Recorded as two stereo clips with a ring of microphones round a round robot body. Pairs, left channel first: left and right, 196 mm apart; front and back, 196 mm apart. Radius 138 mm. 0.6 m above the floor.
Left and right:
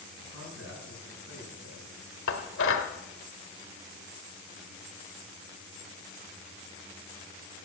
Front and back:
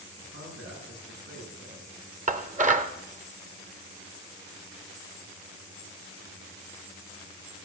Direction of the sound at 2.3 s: 130° left.